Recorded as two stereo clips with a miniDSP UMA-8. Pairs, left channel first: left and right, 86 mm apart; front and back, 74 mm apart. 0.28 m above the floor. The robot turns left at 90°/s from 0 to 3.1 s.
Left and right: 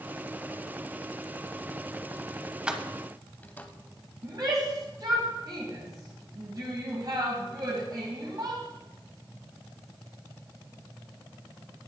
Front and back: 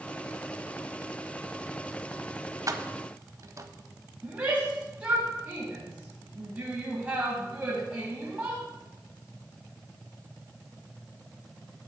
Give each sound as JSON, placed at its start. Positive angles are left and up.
{"t": 2.7, "sound": "keys jangling", "azimuth_deg": -165, "distance_m": 0.8}
{"t": 4.2, "sound": "a shout", "azimuth_deg": -115, "distance_m": 1.8}